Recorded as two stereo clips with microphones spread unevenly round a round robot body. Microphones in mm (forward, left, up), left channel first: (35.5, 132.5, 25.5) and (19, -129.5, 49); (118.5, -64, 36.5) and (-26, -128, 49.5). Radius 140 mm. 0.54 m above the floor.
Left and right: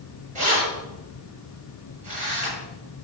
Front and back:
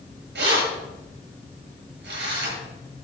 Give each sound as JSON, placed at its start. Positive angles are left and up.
{"t": 0.3, "sound": "keys jangling", "azimuth_deg": -160, "distance_m": 7.0}